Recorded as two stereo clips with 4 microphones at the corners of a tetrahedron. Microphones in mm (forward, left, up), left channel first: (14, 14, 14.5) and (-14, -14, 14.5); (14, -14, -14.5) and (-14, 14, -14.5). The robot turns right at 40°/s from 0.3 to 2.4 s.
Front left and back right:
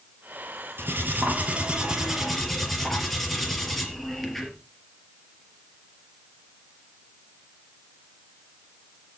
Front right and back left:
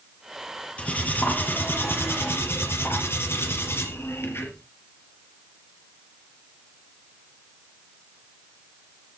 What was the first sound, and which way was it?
Cutlery clinking, 105° right.